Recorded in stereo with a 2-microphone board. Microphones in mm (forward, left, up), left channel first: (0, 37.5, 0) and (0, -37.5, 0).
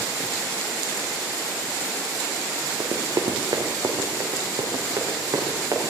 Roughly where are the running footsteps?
Right.